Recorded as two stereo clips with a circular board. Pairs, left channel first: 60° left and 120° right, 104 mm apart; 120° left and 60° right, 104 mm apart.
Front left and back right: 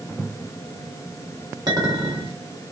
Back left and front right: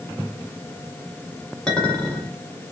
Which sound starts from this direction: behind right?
A clink, at 1.7 s.